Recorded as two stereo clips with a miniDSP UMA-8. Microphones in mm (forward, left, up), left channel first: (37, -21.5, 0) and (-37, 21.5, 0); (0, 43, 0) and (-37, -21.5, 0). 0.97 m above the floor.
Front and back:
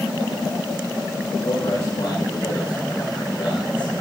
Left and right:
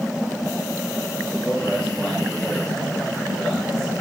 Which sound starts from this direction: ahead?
A man speaking, at 1.4 s.